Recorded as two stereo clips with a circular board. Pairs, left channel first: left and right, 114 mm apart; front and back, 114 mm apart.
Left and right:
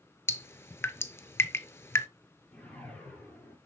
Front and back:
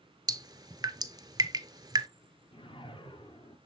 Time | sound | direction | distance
0.3 | dripping | 145° left | 0.6 m
2.5 | a whoosh | 15° left | 1.7 m